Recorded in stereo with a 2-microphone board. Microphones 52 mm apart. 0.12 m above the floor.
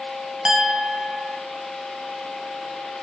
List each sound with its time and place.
0.5 s a clink: 15° right (ahead or behind), 1.9 m